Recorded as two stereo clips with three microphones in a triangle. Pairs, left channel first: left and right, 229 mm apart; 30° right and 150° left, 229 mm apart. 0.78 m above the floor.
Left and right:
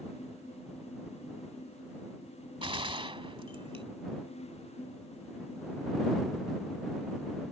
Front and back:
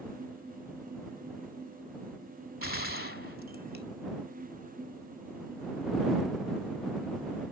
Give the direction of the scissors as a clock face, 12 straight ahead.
I don't hear scissors.